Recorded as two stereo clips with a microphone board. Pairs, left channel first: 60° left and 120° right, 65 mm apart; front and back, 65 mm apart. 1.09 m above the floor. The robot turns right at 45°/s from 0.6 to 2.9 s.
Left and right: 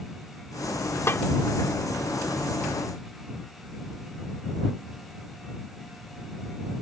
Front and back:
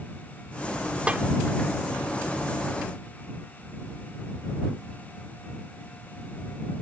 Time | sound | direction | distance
1.1 | a snare drum | 110° left | ?